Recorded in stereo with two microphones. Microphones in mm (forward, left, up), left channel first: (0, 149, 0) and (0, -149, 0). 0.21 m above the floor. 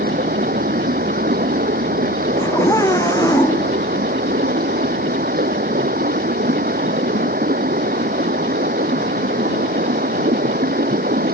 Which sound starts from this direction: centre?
A scream, at 2.4 s.